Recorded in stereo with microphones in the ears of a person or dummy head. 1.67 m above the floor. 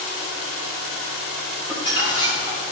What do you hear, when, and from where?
1.7 s crumpling: 10° right (ahead or behind), 3.5 m